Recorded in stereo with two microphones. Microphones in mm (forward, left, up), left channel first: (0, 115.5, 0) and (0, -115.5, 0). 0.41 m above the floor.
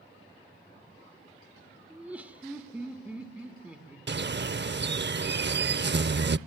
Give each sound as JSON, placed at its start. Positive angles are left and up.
{"t": 1.9, "sound": "laughter", "side_deg": -5, "distance_m": 1.4}
{"t": 4.1, "sound": "a bird", "side_deg": -50, "distance_m": 0.6}